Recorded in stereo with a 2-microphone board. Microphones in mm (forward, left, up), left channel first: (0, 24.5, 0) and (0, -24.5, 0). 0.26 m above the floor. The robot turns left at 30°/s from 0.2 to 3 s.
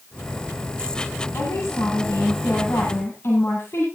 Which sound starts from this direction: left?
A woman speaking, at 1.3 s.